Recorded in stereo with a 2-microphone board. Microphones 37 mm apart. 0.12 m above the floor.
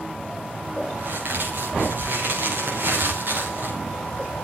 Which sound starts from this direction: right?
A crack, at 1.0 s.